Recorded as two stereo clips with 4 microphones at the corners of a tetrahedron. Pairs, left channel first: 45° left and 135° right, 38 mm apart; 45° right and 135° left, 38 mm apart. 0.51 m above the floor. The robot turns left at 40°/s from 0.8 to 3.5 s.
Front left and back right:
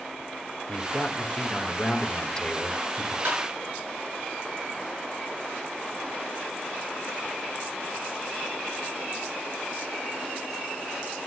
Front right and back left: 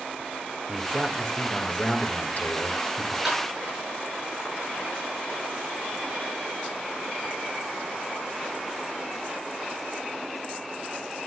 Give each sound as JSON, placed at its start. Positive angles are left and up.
{"t": 0.7, "sound": "a man speaking", "azimuth_deg": 45, "distance_m": 1.9}
{"t": 3.2, "sound": "tapping", "azimuth_deg": -150, "distance_m": 8.0}